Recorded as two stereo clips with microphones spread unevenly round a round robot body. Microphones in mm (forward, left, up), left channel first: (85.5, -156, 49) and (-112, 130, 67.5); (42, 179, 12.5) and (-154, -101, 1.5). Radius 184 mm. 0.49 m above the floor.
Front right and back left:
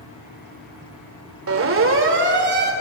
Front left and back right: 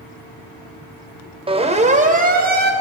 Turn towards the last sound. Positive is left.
turn(degrees=-175)